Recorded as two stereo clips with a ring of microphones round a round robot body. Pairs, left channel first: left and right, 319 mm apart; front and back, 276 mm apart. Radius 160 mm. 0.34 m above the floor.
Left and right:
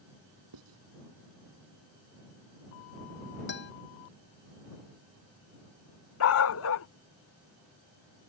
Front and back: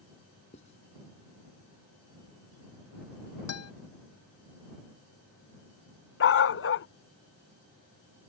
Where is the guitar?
30° left.